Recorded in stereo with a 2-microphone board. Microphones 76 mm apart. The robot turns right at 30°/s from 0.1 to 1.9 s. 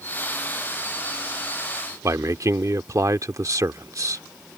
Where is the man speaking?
45° right (ahead or behind).